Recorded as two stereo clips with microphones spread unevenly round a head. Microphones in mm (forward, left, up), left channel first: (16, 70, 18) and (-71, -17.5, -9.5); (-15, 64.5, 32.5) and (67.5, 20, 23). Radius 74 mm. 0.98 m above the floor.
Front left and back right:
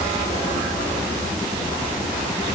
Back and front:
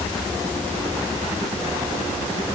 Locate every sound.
Only background noise.